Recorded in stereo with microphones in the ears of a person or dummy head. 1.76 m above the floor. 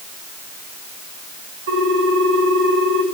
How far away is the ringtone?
About 6 m.